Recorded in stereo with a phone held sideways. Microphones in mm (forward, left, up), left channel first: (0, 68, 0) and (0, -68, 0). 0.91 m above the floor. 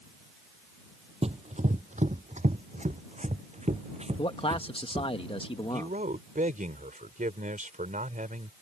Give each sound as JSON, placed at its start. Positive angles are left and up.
{"t": 1.2, "sound": "running footsteps", "side_deg": -50}
{"t": 4.2, "sound": "a man speaking", "side_deg": 40}
{"t": 5.7, "sound": "a man speaking", "side_deg": -75}